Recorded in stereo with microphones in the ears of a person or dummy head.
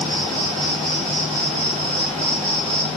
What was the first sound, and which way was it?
An insect, 40° right (ahead or behind).